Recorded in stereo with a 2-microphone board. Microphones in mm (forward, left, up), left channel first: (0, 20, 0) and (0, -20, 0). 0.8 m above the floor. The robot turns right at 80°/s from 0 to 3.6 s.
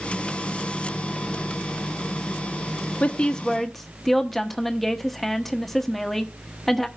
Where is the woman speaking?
125° left, 1.2 m; by 6.9 s 175° left, 1.2 m.